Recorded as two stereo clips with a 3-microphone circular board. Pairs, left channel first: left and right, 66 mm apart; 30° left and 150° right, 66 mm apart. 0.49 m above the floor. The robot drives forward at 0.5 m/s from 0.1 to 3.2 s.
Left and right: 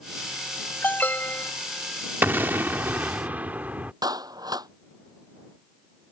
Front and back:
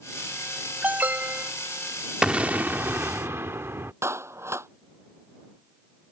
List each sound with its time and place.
0.8 s an alarm: 150° left; by 1.5 s 155° left
2.2 s an explosion: 90° right; by 3.9 s 145° right
4.0 s a clap: 105° right